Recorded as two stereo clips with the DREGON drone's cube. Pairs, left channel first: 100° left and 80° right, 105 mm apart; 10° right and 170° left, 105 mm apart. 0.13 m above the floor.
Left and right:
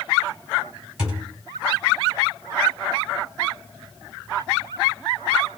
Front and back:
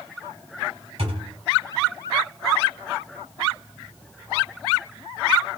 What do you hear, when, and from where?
1.0 s a thud: 160° right, 3.5 m